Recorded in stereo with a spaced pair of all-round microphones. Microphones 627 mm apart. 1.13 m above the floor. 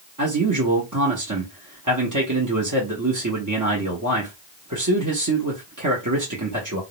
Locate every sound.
0.2 s a man speaking: 30° right (ahead or behind), 0.7 m